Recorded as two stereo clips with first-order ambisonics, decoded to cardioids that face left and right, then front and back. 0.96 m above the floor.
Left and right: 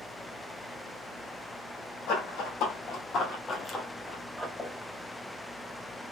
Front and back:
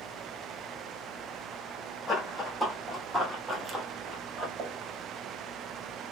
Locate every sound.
2.1 s running footsteps: 90° left, 1.6 m; by 4.5 s 165° right, 1.0 m
4.6 s a pop: 165° left, 1.1 m